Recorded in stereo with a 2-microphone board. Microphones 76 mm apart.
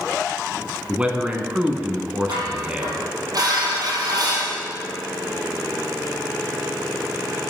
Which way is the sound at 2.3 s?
55° right (ahead or behind).